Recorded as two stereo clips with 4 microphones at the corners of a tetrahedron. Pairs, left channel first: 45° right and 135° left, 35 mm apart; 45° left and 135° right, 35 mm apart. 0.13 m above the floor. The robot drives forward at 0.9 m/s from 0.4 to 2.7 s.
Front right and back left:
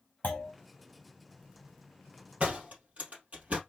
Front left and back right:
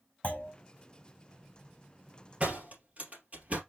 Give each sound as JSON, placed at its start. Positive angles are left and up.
{"t": 0.2, "sound": "a clunk", "azimuth_deg": -5, "distance_m": 3.0}
{"t": 2.4, "sound": "a door slam", "azimuth_deg": 180, "distance_m": 3.0}